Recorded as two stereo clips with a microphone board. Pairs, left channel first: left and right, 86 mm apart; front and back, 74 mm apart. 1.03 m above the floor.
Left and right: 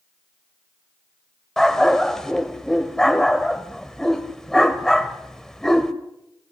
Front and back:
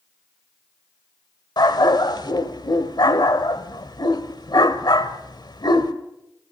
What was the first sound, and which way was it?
A dog barking, 5° left.